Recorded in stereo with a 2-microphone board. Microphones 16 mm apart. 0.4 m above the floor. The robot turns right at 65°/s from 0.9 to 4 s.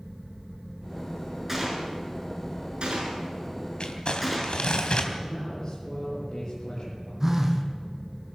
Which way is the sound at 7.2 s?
25° right (ahead or behind).